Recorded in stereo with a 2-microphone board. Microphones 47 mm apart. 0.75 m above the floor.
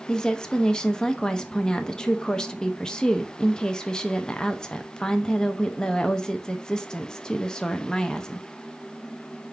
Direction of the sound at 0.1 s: 15° left (ahead or behind).